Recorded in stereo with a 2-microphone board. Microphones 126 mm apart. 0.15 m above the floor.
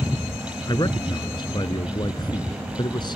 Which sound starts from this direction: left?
A man speaking, at 0.7 s.